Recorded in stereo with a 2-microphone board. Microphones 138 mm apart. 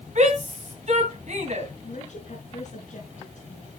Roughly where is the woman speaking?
Left.